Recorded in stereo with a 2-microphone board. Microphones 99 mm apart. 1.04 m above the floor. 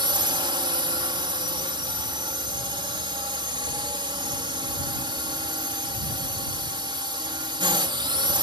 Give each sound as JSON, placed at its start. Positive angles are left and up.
{"t": 0.0, "sound": "a drone", "side_deg": -55}